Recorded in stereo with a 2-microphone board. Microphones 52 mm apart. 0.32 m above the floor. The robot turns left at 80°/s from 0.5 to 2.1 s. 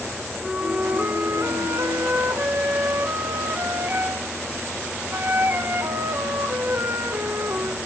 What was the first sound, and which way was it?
A flute, straight ahead.